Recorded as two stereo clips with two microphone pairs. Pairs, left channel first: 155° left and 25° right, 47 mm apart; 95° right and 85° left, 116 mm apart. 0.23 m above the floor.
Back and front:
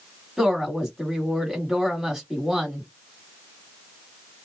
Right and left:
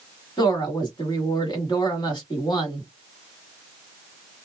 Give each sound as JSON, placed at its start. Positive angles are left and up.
{"t": 0.4, "sound": "a woman speaking", "azimuth_deg": -100, "distance_m": 1.3}